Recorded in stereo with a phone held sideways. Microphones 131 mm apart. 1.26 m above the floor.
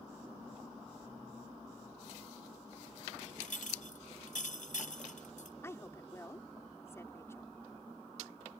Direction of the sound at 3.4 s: 75° left (ahead or behind).